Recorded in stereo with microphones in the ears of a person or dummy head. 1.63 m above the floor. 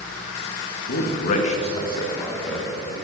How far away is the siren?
I don't hear a siren.